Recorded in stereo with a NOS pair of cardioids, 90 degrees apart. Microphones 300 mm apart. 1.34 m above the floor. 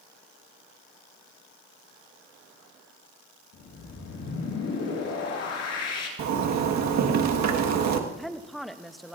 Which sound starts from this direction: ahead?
A woman speaking, at 8.1 s.